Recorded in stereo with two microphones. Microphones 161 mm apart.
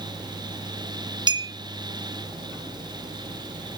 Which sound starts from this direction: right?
A clink, at 1.3 s.